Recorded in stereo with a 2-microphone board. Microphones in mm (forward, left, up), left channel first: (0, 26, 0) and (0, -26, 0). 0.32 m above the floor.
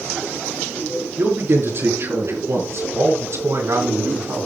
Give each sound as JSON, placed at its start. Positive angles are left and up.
{"t": 1.2, "sound": "a man speaking", "side_deg": -45, "distance_m": 5.0}